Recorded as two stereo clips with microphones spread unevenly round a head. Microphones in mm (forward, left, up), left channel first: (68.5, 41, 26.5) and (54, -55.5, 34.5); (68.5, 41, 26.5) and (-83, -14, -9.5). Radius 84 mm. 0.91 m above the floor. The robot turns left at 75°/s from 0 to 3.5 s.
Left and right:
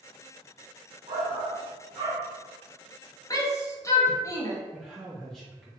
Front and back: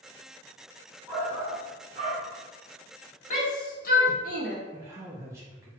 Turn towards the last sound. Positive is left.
turn(degrees=160)